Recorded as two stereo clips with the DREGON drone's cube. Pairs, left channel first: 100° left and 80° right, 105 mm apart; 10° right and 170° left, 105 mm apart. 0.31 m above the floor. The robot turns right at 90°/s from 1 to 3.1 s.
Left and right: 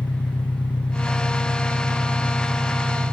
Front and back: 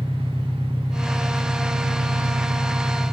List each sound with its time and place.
0.0 s an engine running: 55° left, 1.6 m; by 3.1 s 115° right, 1.6 m